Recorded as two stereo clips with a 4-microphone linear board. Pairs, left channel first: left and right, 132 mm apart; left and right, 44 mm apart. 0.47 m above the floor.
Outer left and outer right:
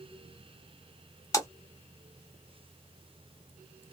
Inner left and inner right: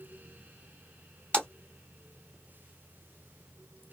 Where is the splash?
25° left (ahead or behind), 0.7 m.